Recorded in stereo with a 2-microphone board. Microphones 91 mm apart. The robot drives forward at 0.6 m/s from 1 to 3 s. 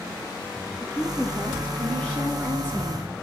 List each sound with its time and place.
0.8 s a woman speaking: 15° left (ahead or behind), 5 m; by 3.1 s 20° left (ahead or behind), 3.5 m